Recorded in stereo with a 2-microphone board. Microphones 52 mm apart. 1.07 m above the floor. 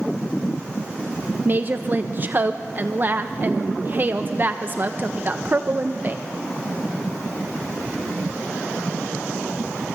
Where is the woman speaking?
40° right (ahead or behind), 0.7 m.